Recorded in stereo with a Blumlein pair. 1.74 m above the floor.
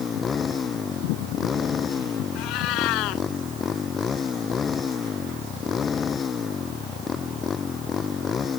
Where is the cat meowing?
40° left.